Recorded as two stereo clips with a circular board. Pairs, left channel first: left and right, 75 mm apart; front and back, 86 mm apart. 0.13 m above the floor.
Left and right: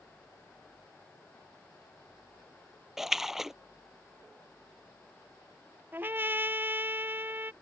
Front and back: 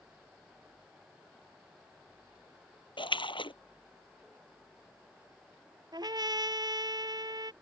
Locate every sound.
3.0 s a splash: 5° right
5.9 s a trumpet: 150° right